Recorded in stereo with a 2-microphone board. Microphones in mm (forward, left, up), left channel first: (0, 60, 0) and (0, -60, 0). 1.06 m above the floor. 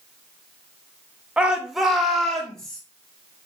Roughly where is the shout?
Centre.